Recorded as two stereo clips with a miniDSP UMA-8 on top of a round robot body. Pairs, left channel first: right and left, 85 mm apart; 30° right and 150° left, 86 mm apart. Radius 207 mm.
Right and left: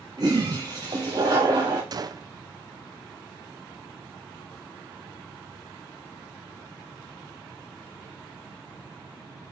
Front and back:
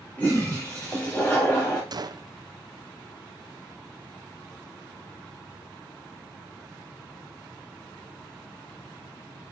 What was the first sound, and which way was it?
A toilet flushing, 45° left.